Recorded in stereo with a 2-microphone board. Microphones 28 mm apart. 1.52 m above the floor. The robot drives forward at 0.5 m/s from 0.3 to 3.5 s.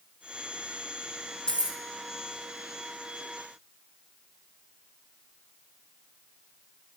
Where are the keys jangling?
30° left (ahead or behind), 1.1 m.